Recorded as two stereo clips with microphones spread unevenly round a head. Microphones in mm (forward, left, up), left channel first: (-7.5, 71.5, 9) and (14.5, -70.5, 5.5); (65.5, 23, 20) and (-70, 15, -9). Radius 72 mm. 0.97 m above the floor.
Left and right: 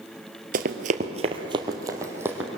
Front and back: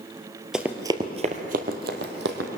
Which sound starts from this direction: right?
Running footsteps, at 0.5 s.